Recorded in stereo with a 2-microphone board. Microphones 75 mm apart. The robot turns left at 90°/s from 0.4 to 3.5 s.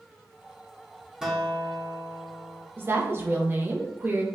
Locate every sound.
1.2 s a guitar: 170° right, 0.5 m; by 2.7 s 60° left, 0.5 m
2.8 s a woman speaking: 60° right, 0.5 m; by 4.2 s 130° right, 0.5 m